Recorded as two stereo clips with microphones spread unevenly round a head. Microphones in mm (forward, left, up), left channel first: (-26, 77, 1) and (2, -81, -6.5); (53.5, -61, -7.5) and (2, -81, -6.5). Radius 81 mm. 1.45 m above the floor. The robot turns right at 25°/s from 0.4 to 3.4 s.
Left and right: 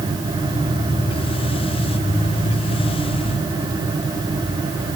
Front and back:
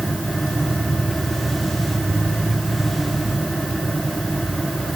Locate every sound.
Only background noise.